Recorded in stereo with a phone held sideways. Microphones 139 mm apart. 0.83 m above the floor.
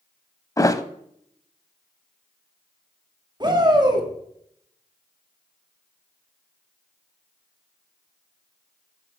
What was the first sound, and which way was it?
A thud, 25° left (ahead or behind).